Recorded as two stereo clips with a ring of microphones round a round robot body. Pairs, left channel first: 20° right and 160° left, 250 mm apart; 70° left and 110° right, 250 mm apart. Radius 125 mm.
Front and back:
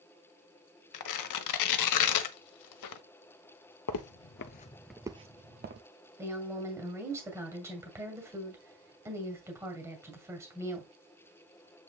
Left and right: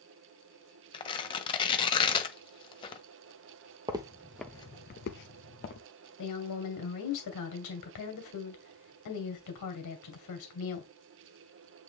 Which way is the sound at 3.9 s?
40° right.